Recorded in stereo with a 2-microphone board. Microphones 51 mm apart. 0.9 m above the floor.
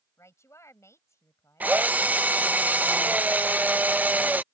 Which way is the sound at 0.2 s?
75° left (ahead or behind).